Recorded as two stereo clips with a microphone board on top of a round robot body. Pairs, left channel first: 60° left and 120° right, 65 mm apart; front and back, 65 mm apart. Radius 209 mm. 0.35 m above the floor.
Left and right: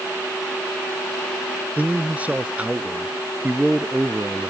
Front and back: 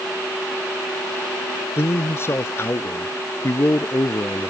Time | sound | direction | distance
1.8 | a man speaking | 50° right | ?